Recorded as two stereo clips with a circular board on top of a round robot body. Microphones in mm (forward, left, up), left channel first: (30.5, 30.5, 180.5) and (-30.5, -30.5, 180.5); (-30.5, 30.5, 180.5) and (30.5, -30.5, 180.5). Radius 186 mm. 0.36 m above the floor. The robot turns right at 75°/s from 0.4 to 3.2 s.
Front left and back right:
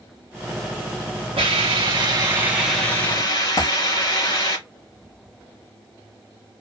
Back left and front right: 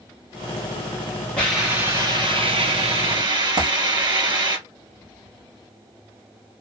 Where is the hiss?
145° right, 1.4 m; by 4.6 s 5° right, 1.4 m.